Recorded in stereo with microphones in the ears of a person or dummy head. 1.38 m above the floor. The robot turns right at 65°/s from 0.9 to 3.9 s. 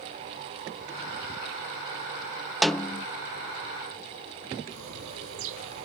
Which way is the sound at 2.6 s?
Centre (ahead or behind).